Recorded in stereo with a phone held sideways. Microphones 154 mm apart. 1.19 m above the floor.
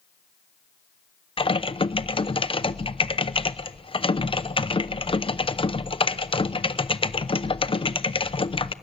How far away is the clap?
No clap in this recording.